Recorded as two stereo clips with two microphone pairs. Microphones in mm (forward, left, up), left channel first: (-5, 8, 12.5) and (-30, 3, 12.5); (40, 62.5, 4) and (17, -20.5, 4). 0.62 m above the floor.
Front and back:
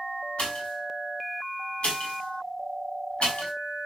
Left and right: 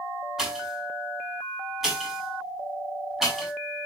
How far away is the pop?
About 6.5 m.